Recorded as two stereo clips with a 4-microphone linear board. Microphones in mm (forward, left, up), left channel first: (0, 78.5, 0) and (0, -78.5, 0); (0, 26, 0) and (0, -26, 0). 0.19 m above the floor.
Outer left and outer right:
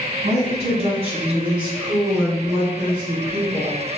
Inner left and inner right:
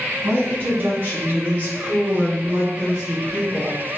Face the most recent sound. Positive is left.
turn(degrees=-15)  # may be behind; listen again after turning